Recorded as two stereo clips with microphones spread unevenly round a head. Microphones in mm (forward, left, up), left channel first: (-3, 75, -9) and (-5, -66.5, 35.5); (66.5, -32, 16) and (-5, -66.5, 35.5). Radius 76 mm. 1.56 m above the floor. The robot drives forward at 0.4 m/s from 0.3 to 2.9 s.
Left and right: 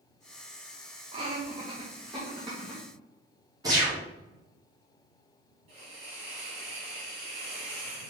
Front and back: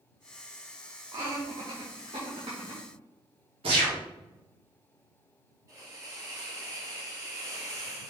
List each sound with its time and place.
1.1 s laughter: 130° right, 1.3 m; by 2.8 s 150° right, 1.8 m
3.6 s a gunshot: 160° right, 2.5 m
5.7 s a hiss: 120° right, 3.5 m